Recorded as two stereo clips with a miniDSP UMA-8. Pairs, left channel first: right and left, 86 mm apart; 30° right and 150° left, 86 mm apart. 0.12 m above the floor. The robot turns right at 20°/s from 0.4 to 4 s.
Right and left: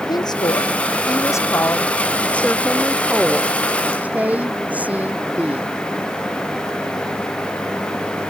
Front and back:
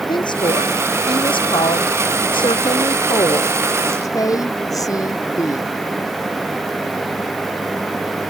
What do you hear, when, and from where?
0.1 s a woman speaking: 55° right; by 5.7 s 15° left